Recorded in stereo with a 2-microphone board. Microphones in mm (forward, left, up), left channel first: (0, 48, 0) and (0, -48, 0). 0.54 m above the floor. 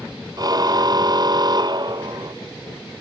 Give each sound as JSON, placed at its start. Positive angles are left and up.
{"t": 0.4, "sound": "a car horn", "side_deg": -45}